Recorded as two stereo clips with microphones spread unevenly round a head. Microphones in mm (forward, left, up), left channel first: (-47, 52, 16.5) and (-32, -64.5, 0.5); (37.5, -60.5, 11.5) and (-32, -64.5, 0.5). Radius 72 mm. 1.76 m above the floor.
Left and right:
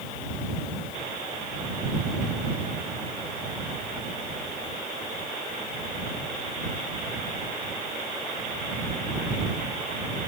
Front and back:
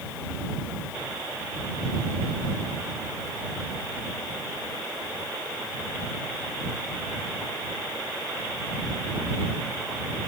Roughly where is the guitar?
No guitar in this recording.